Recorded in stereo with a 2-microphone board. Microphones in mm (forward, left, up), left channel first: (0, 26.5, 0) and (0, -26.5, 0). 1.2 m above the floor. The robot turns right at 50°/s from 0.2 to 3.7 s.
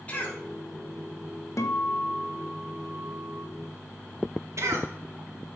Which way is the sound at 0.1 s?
30° left (ahead or behind).